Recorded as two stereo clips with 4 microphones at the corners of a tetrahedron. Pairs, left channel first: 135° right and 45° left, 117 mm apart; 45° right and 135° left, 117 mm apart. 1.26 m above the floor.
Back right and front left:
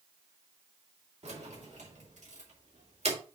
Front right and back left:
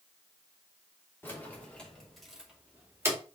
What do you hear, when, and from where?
1.2 s keys jangling: 25° left, 2.5 m; by 3.2 s 70° left, 2 m